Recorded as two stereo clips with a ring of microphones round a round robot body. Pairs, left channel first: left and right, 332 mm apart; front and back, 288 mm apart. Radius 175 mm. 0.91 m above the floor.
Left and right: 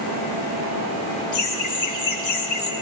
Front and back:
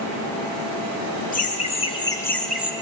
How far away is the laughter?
About 1.6 m.